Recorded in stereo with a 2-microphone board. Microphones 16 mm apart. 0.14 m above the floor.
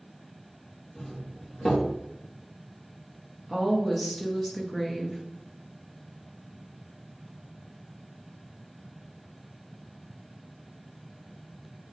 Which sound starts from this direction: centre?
A woman speaking, at 3.5 s.